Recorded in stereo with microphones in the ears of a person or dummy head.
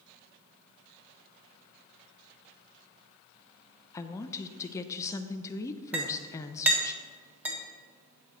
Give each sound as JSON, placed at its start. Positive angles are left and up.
{"t": 3.9, "sound": "a woman speaking", "side_deg": 20, "distance_m": 0.6}
{"t": 5.9, "sound": "a clink", "side_deg": -5, "distance_m": 1.4}